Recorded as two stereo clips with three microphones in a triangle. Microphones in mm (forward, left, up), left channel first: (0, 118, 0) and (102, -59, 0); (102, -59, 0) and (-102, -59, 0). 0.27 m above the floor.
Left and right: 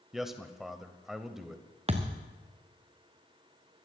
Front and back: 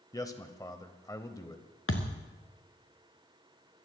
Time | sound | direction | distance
0.1 | a man speaking | 25° left | 0.9 m
1.9 | a thud | straight ahead | 1.6 m